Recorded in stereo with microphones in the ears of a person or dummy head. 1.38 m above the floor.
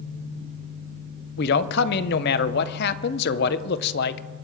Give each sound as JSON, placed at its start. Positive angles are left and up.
{"t": 1.4, "sound": "a man speaking", "side_deg": 65, "distance_m": 0.8}